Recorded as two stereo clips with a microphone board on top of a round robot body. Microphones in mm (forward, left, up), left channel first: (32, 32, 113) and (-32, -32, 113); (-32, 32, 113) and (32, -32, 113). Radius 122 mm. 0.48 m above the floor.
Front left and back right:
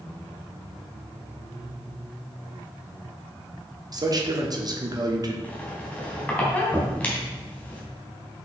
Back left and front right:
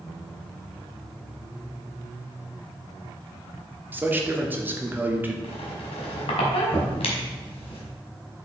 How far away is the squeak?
About 1.5 m.